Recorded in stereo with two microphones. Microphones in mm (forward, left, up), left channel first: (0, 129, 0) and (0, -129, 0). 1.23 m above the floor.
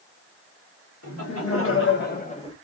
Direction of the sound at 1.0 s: 70° left (ahead or behind).